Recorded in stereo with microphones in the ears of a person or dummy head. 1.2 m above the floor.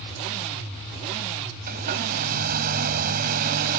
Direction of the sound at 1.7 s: 55° right (ahead or behind).